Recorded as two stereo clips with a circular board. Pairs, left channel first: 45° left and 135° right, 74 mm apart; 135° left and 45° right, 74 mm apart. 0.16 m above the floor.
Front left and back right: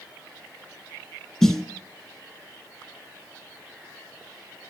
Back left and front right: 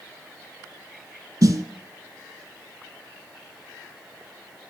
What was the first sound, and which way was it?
A snare drum, 35° right.